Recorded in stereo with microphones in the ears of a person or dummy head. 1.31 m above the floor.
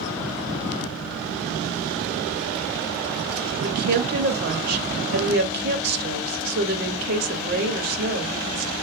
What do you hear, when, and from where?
3.6 s a woman speaking: 50° right (ahead or behind), 0.8 m